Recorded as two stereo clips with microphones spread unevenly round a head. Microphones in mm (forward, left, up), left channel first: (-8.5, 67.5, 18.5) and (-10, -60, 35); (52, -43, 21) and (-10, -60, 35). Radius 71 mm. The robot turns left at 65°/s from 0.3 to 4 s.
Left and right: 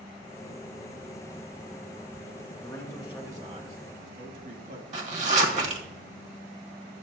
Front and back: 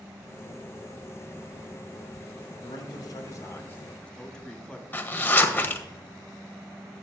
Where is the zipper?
50° right, 1.4 m.